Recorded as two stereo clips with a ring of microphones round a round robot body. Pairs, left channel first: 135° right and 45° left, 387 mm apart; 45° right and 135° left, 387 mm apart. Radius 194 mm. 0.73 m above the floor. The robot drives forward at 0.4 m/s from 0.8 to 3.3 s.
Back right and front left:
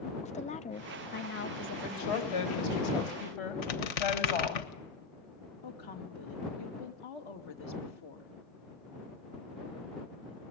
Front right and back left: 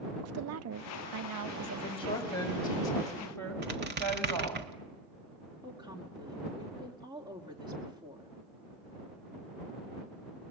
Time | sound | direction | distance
0.2 | a woman speaking | 160° left | 0.6 m
1.8 | a woman speaking | 120° right | 4 m
3.6 | a squeak | 160° right | 1.5 m
5.6 | a woman speaking | 145° right | 2.5 m